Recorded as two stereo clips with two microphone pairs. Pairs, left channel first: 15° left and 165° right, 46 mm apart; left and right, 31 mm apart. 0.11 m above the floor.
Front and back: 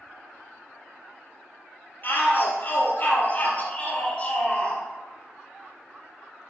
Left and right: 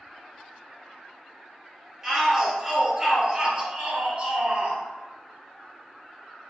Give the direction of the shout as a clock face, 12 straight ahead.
1 o'clock.